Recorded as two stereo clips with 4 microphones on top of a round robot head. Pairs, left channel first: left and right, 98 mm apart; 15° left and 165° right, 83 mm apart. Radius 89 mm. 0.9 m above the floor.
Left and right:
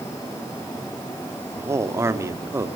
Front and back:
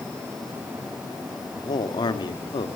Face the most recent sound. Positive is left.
turn(degrees=-25)